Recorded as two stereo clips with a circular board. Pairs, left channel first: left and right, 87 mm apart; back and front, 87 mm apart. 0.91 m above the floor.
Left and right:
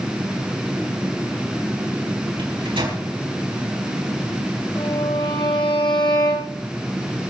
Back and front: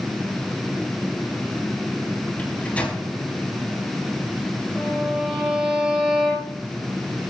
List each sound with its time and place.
2.4 s a microwave: 105° right, 5 m
4.8 s a violin: 80° left, 5.5 m